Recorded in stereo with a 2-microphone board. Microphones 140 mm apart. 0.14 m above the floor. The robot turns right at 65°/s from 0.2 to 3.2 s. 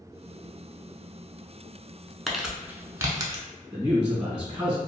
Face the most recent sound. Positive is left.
turn(degrees=-10)  # may be behind; listen again after turning